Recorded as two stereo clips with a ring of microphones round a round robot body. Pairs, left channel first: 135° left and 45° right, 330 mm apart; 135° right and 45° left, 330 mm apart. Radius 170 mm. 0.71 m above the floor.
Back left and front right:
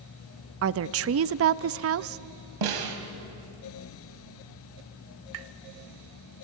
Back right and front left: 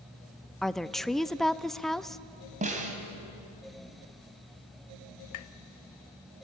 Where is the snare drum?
25° right, 2.5 m.